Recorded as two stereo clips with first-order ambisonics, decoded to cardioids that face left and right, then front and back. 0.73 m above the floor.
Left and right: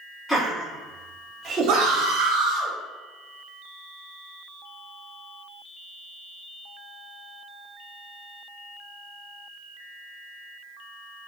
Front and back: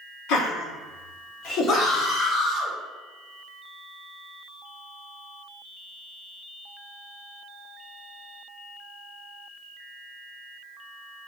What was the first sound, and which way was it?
Laughter, 5° left.